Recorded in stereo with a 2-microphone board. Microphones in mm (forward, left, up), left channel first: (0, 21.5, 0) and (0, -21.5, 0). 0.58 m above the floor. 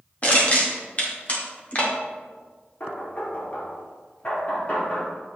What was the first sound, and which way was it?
Crushing, 35° left (ahead or behind).